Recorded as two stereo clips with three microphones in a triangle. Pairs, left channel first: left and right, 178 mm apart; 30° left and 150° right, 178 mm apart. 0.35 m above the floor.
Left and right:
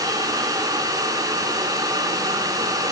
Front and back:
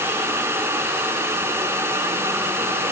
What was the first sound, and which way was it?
Only background noise.